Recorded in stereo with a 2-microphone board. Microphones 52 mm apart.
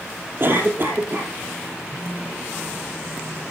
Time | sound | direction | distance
0.4 | a cough | 40° right (ahead or behind) | 3.5 m
1.9 | a phone buzzing | 40° right (ahead or behind) | 8.5 m